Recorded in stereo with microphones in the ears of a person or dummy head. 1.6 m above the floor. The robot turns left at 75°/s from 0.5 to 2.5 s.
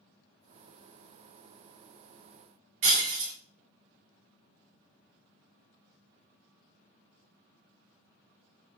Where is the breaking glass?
50° right (ahead or behind), 0.9 m.